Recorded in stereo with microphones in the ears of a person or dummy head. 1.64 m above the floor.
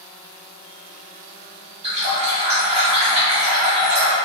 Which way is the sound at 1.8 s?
30° right (ahead or behind).